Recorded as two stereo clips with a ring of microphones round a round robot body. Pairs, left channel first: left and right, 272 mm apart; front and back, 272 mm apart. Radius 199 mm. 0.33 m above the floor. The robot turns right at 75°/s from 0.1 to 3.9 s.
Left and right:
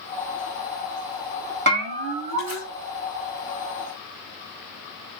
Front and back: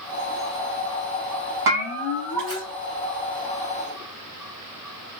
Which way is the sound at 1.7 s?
140° right.